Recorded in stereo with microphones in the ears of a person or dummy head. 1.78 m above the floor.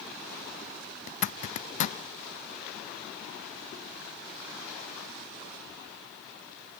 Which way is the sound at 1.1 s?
45° left (ahead or behind).